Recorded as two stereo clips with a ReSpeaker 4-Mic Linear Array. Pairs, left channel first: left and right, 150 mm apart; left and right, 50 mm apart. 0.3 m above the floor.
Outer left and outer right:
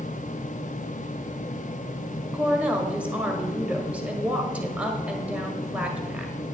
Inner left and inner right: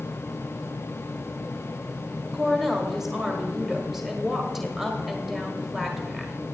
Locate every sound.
2.3 s a woman speaking: 10° right (ahead or behind), 1.4 m